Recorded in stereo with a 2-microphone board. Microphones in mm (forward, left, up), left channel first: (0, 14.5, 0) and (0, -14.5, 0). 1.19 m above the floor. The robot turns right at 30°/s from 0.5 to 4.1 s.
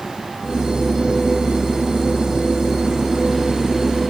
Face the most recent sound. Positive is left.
No sound to turn to.